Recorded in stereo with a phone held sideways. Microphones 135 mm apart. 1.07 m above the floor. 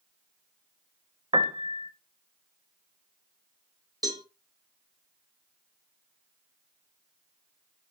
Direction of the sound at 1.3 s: 35° right (ahead or behind).